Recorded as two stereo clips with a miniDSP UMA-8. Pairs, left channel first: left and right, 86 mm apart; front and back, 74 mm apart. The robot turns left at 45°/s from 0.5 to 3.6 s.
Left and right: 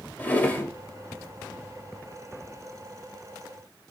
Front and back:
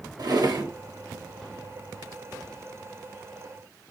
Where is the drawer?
160° left, 0.6 m; by 0.7 s 150° left, 0.6 m.